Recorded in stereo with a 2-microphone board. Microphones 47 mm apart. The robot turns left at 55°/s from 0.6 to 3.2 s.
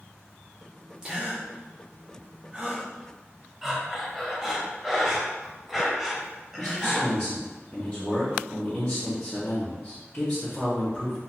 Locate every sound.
1.0 s a gasp: 15° right (ahead or behind), 0.6 m
3.6 s breathing: 5° right (ahead or behind), 0.6 m
6.6 s a man speaking: 20° left (ahead or behind), 0.7 m